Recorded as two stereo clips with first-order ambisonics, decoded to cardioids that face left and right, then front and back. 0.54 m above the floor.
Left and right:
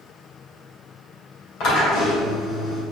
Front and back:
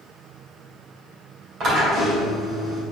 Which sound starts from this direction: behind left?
A drill, at 1.6 s.